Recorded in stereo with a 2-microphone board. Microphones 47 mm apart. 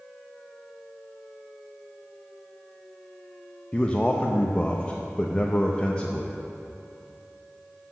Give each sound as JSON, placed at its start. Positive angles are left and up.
{"t": 3.7, "sound": "a man speaking", "side_deg": 25, "distance_m": 0.6}